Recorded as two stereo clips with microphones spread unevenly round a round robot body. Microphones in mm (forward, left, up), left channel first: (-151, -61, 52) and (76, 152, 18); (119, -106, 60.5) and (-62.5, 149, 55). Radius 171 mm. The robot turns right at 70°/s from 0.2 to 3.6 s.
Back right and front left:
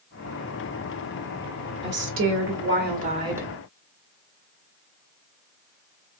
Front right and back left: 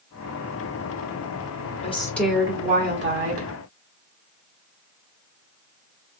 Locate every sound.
1.8 s a woman speaking: 5° left, 1.8 m; by 3.5 s 125° left, 1.8 m